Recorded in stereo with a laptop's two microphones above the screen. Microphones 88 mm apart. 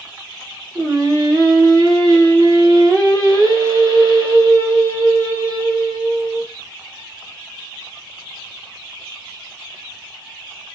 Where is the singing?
40° right (ahead or behind), 1.2 m.